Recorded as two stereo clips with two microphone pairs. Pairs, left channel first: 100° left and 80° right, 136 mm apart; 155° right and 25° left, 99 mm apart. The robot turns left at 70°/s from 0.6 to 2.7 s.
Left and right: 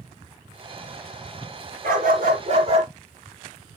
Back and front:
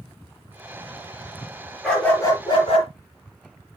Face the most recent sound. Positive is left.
turn(degrees=-130)